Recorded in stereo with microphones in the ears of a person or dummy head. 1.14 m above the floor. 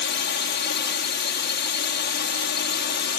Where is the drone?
55° left (ahead or behind); by 3.2 s 50° left (ahead or behind).